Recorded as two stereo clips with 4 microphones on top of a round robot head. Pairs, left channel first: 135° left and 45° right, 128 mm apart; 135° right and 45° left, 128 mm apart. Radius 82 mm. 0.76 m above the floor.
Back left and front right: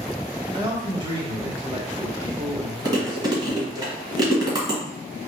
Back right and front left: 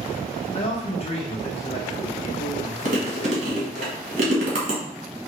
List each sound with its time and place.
0.5 s a man speaking: 95° right, 1.4 m
2.9 s chewing: 15° left, 1.3 m